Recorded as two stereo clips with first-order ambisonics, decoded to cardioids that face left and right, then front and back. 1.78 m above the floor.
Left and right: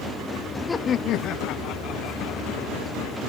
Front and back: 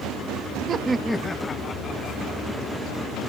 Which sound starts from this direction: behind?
Laughter, at 0.7 s.